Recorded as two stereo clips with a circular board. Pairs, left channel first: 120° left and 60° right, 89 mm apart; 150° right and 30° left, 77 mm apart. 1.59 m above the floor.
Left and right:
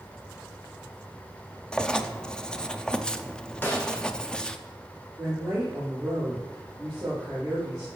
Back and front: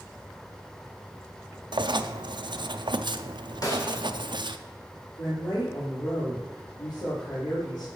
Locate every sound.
1.7 s writing: 40° left, 0.5 m
3.6 s a snare drum: 175° right, 2.0 m
5.2 s a woman speaking: 145° right, 4.5 m